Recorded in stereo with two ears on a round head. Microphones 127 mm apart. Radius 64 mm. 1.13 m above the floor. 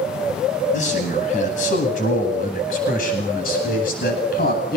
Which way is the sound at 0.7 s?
55° left (ahead or behind).